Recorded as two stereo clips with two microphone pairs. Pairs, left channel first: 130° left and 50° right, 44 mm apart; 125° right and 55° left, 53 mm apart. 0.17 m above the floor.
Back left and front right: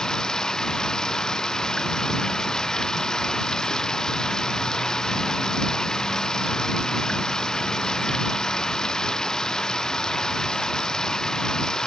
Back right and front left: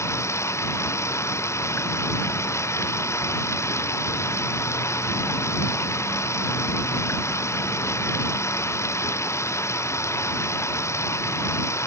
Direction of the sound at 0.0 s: 155° right.